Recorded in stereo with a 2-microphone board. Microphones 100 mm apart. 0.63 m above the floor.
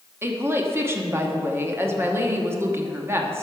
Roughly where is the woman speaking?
Right.